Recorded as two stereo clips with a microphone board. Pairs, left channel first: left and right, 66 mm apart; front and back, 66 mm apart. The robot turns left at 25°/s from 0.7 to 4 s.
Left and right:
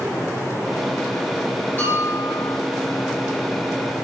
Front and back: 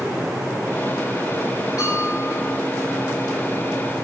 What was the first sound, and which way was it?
A bell, 25° left.